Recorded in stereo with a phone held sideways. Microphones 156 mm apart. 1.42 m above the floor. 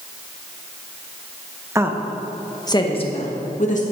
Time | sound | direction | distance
1.8 | a woman speaking | 20° right (ahead or behind) | 1.2 m